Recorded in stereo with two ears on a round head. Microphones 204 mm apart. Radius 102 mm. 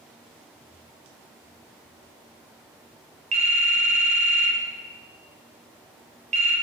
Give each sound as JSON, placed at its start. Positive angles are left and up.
{"t": 3.3, "sound": "a phone ringing", "side_deg": -30, "distance_m": 0.6}